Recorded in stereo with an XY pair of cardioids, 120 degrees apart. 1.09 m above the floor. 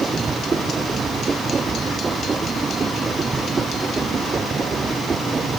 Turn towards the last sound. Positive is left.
turn(degrees=-25)